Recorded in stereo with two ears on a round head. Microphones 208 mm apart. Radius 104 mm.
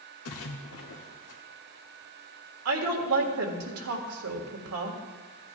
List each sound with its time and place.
0.2 s a splash: 70° left (ahead or behind), 1.2 m
2.6 s a woman speaking: 75° right (ahead or behind), 1.8 m